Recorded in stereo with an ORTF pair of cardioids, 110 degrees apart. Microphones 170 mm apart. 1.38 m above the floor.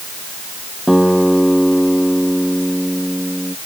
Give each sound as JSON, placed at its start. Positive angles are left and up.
{"t": 0.9, "sound": "a guitar", "azimuth_deg": 0}